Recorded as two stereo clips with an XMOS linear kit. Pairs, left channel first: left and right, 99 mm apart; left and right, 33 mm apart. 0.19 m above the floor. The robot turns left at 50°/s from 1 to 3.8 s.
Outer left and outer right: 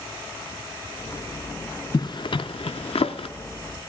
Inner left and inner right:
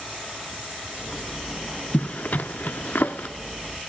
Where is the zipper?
40° left (ahead or behind), 0.6 m; by 3.3 s 65° left (ahead or behind), 0.6 m.